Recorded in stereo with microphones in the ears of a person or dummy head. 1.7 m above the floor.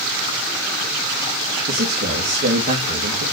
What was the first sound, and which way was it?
A man speaking, 45° right (ahead or behind).